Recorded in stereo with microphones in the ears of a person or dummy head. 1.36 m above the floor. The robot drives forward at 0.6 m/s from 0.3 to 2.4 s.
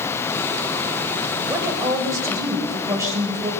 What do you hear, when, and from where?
1.4 s a woman speaking: 15° right (ahead or behind), 7 m; by 3.5 s 10° right (ahead or behind), 7.5 m